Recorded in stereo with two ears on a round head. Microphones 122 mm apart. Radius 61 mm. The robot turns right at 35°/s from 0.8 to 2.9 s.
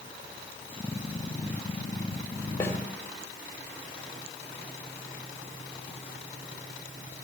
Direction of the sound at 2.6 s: 15° left (ahead or behind).